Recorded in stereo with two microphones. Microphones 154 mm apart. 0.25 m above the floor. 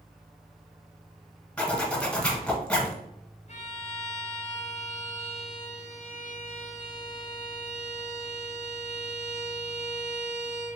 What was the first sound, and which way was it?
A zipper, 5° left (ahead or behind).